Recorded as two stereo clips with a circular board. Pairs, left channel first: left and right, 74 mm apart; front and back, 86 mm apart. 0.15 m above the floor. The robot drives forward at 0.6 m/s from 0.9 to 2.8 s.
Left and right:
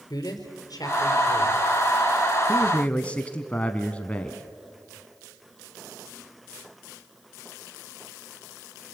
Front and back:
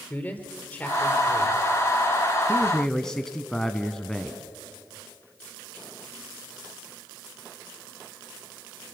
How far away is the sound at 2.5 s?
About 1.1 m.